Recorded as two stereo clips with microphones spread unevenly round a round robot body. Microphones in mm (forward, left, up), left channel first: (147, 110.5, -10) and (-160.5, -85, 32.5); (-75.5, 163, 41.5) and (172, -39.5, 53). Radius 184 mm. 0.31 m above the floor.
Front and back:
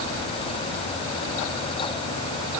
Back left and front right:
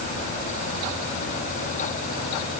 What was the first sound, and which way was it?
Only background noise.